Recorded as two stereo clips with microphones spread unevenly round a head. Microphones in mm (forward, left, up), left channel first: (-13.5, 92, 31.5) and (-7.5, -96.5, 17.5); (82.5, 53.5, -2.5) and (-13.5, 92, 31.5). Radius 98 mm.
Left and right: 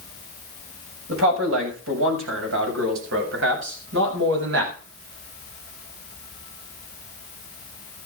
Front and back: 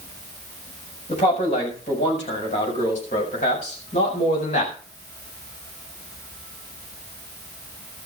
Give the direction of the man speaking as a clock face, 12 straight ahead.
2 o'clock.